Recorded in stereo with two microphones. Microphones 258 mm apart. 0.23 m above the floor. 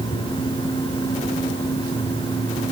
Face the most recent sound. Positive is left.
No sound to turn to.